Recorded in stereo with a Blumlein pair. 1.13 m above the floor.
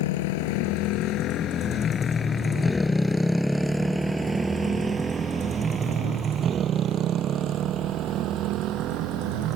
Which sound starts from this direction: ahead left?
A motorcycle, at 0.0 s.